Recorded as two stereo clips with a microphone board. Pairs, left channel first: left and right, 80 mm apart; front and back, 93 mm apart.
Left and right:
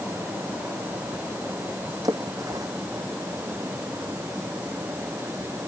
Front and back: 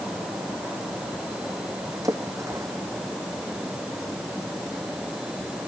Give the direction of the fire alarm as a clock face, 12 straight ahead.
I don't hear a fire alarm.